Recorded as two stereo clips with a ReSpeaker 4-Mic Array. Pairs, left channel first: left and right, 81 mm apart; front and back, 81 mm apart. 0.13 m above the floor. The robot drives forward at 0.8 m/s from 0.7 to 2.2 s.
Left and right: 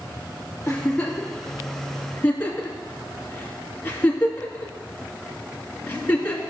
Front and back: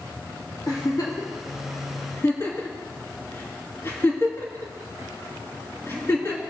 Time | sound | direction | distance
0.7 | a giggle | 20° left | 3 m